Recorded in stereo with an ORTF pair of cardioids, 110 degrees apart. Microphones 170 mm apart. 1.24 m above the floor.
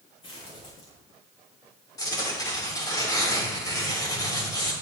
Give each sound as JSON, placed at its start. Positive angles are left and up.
{"t": 0.2, "sound": "footsteps", "azimuth_deg": 35, "distance_m": 6.0}
{"t": 2.0, "sound": "tearing paper", "azimuth_deg": 20, "distance_m": 5.0}